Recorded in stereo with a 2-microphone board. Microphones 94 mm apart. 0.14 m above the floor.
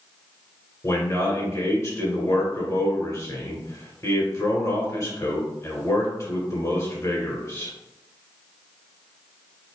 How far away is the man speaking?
About 1.6 m.